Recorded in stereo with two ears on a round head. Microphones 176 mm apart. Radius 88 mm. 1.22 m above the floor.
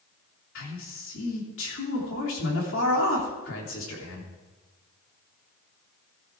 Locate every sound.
0.6 s a man speaking: 75° left (ahead or behind), 3 m